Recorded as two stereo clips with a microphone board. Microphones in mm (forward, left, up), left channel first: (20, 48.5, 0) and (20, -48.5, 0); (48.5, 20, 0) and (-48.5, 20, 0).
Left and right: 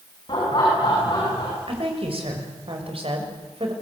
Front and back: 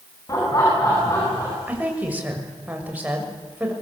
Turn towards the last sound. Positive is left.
turn(degrees=-105)